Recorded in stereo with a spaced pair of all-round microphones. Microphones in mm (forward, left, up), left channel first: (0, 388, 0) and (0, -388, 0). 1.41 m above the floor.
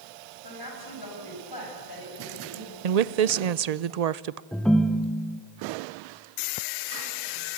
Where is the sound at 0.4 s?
30° left (ahead or behind), 7 m.